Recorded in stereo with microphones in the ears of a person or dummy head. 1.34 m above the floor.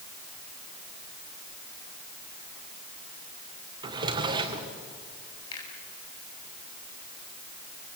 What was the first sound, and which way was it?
A drawer, 25° right (ahead or behind).